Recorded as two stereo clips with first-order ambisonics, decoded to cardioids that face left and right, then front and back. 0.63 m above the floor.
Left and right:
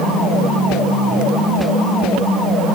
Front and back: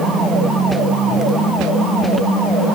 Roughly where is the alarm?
I don't hear an alarm.